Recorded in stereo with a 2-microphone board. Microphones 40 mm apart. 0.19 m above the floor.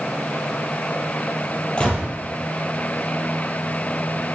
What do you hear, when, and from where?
1.8 s a gunshot: 25° left (ahead or behind), 2.5 m